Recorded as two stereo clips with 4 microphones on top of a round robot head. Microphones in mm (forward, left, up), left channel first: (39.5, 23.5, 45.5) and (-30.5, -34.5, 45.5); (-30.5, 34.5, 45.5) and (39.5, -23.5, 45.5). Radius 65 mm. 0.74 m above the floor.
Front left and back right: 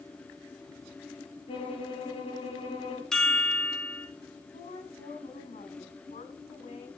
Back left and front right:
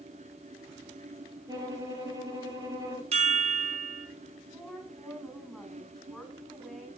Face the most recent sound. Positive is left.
turn(degrees=50)